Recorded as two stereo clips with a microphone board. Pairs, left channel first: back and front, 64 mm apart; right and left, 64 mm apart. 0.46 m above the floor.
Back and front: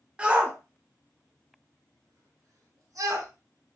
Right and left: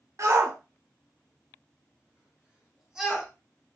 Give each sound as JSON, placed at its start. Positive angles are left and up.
{"t": 0.2, "sound": "a shout", "azimuth_deg": 70, "distance_m": 1.2}